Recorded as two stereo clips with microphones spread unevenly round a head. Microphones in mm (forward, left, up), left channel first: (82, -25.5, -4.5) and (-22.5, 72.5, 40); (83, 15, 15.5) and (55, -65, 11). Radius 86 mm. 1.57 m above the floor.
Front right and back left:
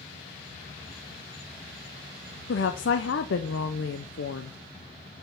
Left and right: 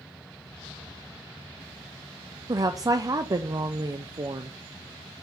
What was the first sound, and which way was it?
A woman speaking, 60° right.